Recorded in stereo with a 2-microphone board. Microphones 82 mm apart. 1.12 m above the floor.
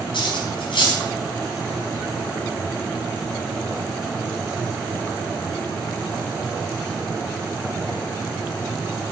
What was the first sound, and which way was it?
Cutlery clinking, 85° left.